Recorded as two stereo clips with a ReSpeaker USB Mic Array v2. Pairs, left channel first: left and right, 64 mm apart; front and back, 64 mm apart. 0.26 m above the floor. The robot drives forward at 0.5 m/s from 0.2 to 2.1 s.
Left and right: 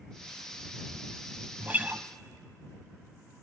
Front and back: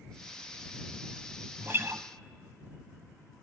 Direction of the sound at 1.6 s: 145° right.